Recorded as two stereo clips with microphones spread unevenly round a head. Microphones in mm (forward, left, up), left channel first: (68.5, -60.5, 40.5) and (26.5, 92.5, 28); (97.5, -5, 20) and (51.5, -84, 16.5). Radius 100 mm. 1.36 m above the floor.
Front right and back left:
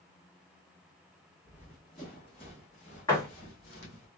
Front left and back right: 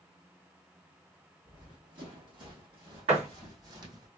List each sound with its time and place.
1.4 s running footsteps: 145° right, 2.0 m; by 4.1 s 90° right, 2.5 m
3.1 s a door slam: 150° right, 1.3 m